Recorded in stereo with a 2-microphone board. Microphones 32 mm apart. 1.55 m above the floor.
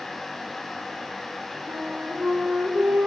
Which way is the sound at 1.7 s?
85° right.